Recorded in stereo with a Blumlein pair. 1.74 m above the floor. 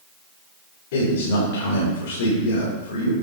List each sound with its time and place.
0.9 s a man speaking: 55° left, 5 m